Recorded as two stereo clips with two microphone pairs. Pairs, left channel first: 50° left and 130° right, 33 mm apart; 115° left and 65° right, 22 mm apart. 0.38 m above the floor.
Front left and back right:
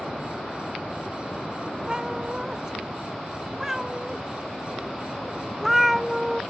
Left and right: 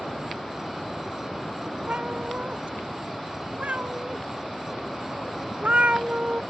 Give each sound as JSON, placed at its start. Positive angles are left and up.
{"t": 1.9, "sound": "a cat meowing", "azimuth_deg": -60}